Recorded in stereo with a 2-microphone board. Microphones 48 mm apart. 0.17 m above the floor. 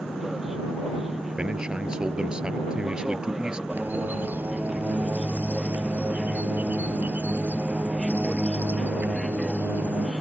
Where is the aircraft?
5° right (ahead or behind).